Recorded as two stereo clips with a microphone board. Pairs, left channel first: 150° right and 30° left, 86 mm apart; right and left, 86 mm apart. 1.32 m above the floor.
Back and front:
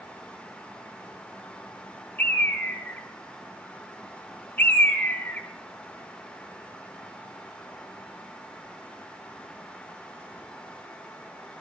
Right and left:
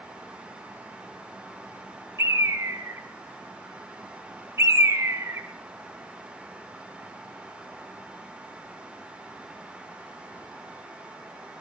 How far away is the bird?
About 1.7 m.